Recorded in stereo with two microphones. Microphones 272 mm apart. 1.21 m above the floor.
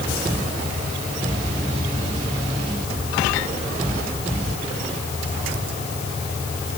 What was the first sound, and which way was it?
Only background noise.